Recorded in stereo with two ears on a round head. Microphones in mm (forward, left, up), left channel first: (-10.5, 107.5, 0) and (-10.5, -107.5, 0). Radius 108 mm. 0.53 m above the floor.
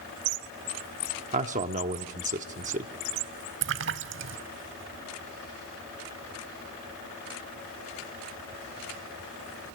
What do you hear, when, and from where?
1.3 s a man speaking: 30° right (ahead or behind), 0.9 m
3.6 s a splash: 55° right (ahead or behind), 0.6 m